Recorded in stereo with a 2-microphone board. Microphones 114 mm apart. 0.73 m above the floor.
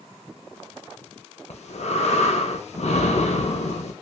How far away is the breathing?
About 0.5 m.